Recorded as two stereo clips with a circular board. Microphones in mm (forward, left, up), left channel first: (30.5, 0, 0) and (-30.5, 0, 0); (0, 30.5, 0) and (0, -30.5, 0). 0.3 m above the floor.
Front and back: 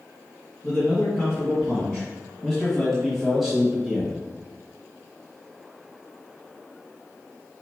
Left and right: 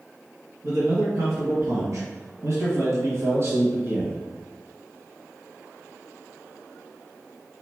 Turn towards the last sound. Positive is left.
turn(degrees=-110)